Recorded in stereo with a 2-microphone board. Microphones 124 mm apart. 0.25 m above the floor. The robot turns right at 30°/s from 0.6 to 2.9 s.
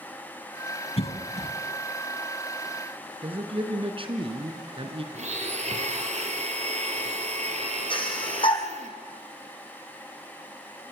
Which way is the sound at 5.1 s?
65° right (ahead or behind).